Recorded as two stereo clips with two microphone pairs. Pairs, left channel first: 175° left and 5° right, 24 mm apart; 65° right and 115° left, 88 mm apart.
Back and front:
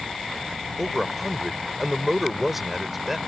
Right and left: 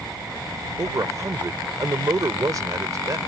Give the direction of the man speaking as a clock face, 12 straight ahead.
10 o'clock.